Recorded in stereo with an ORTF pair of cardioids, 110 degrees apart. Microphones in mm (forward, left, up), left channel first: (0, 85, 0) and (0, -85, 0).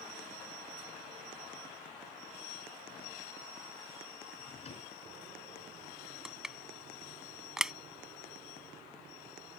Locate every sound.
4.3 s a drawer: 40° left
6.2 s crushing: 5° right